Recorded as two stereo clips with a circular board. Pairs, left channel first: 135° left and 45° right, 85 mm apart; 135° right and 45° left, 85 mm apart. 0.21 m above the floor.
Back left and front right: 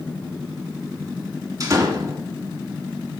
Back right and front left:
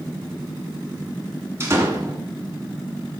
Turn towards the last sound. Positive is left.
turn(degrees=-10)